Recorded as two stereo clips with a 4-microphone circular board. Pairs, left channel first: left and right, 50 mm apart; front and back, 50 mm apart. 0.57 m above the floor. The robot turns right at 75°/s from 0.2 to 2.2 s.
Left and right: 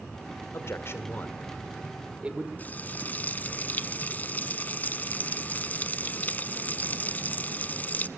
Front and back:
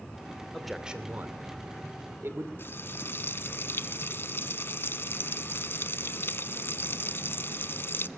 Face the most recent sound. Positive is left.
turn(degrees=40)